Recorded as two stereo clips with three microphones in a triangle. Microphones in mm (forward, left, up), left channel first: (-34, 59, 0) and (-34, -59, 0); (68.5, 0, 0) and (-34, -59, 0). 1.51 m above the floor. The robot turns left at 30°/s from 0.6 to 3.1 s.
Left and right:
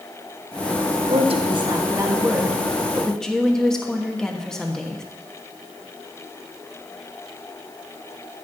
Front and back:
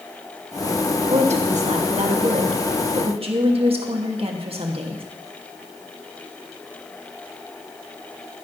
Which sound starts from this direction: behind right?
A woman speaking, at 1.1 s.